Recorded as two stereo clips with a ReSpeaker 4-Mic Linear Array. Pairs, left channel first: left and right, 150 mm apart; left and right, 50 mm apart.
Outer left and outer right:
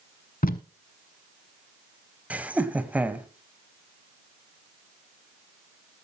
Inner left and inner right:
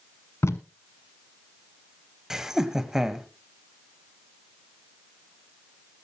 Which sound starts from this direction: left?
Tape being pulled, at 0.4 s.